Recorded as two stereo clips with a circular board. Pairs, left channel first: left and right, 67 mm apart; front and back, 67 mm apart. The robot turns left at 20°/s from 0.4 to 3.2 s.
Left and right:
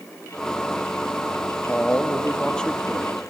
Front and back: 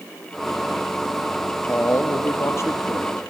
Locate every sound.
1.7 s a man speaking: 35° left, 0.7 m; by 3.2 s 5° left, 0.7 m